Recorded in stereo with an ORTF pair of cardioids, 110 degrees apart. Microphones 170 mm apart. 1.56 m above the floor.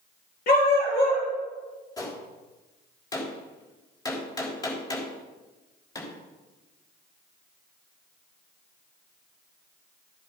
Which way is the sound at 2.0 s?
20° left.